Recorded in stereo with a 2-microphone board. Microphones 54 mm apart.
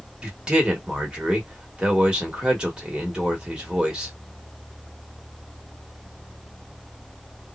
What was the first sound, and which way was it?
A man speaking, 15° right (ahead or behind).